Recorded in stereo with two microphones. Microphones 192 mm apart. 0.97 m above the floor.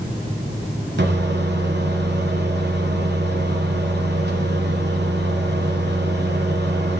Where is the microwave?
65° right (ahead or behind), 0.7 m.